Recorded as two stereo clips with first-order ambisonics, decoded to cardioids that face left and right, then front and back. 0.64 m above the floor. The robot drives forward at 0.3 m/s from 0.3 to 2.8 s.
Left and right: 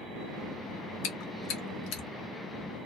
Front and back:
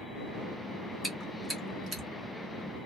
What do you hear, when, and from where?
1.0 s chewing: 100° left, 1.1 m; by 2.0 s 115° left, 1.2 m